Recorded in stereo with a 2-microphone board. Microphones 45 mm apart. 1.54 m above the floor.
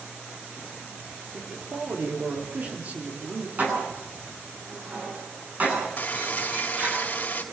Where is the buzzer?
40° left (ahead or behind), 3 m.